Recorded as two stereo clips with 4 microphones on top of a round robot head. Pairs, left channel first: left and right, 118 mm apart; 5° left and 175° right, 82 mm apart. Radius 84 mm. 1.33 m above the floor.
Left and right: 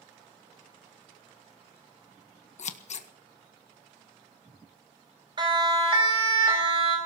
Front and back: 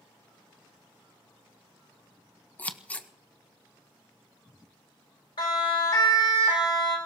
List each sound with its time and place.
2.6 s scissors: 80° left, 1.3 m
5.4 s a siren: 40° right, 4.5 m; by 7.0 s 50° right, 4.5 m